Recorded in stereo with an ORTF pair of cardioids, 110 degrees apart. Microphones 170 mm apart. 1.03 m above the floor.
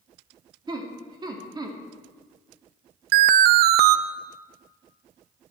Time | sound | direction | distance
0.7 | laughter | 25° right | 2 m
3.1 | an alarm | 70° right | 0.6 m